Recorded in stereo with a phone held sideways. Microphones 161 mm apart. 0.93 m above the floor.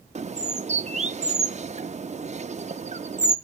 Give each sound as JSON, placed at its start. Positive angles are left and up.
{"t": 0.1, "sound": "a bird", "side_deg": -45, "distance_m": 0.5}